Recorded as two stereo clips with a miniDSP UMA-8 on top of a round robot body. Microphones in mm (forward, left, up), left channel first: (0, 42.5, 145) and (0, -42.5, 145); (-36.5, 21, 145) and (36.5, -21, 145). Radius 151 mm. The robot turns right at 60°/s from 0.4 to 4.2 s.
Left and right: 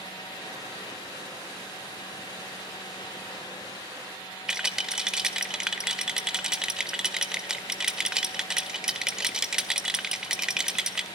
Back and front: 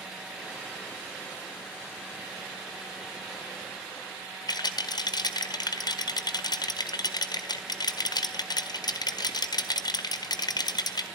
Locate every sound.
4.5 s a rattle: 175° right, 1.6 m